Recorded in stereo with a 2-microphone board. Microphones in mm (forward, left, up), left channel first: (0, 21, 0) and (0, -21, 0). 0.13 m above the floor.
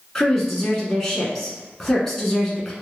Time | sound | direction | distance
0.1 | a woman speaking | 10° left (ahead or behind) | 1.1 m